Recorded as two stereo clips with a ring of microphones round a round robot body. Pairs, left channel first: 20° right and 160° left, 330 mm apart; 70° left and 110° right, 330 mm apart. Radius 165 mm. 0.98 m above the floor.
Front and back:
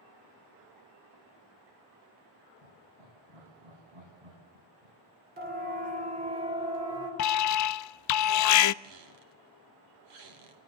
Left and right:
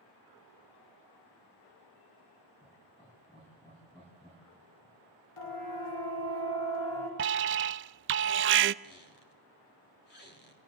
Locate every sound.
2.6 s laughter: 140° left, 6.5 m
5.4 s a siren: 95° left, 4.5 m; by 7.1 s 80° left, 4.5 m
7.2 s an alarm: 60° right, 0.5 m
8.8 s a squeak: 130° left, 3 m